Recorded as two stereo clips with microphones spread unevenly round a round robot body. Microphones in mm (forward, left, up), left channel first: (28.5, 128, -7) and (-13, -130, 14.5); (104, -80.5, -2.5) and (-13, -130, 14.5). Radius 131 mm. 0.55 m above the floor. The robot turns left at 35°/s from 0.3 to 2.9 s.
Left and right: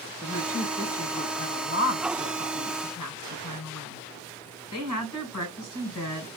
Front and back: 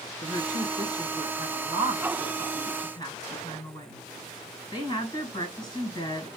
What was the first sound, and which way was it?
A woman speaking, straight behind.